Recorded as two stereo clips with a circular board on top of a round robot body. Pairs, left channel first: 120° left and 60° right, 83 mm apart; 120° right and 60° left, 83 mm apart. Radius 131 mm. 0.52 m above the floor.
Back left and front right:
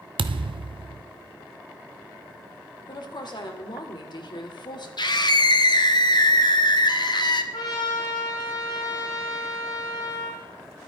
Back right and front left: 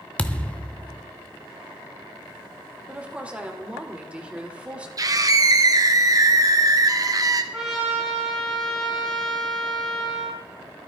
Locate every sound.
0.2 s a thud: 40° right, 0.6 m
2.9 s a woman speaking: 135° left, 2 m
5.0 s a scream: 100° left, 1.7 m
7.5 s a trumpet: 150° left, 6.5 m